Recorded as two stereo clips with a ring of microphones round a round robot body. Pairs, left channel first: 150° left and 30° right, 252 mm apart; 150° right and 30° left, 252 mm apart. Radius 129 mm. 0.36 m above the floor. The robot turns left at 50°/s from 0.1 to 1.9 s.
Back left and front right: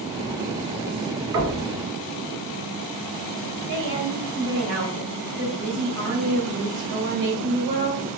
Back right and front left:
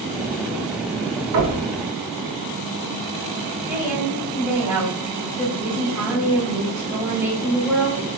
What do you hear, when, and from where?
1.3 s knocking: 5° left, 2 m; by 1.6 s 10° right, 2 m
3.7 s a woman speaking: 50° right, 2.0 m